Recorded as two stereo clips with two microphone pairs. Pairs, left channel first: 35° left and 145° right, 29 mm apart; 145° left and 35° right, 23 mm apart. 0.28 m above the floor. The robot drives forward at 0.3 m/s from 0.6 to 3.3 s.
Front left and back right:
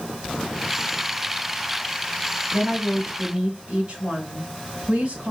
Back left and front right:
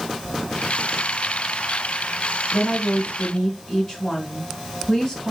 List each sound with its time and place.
2.5 s a woman speaking: 165° left, 1.6 m; by 5.3 s 170° left, 1.8 m